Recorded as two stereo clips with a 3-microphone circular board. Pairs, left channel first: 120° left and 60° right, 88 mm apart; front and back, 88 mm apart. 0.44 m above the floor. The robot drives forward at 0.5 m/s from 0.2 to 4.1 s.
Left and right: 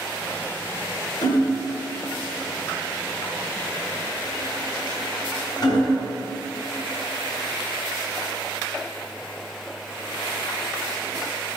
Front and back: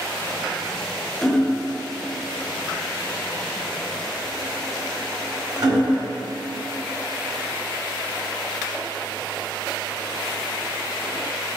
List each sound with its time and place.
1.2 s hammering: 85° left, 1.1 m; by 6.1 s 145° left, 1.8 m